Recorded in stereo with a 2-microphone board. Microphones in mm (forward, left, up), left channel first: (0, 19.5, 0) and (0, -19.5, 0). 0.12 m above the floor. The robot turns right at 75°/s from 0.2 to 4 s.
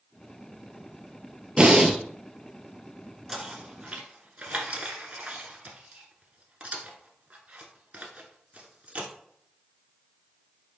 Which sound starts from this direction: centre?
Knocking, at 3.3 s.